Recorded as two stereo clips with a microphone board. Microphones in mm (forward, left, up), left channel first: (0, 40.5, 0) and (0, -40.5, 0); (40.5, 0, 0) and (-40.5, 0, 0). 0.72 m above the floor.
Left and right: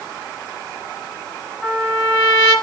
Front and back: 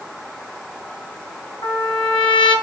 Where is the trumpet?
Straight ahead, 5 m.